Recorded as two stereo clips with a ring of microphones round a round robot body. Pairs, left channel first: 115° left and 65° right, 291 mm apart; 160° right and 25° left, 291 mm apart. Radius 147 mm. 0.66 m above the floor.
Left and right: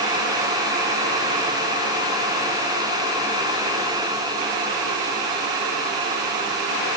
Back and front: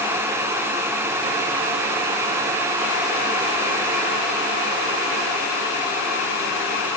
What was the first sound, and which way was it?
Only background noise.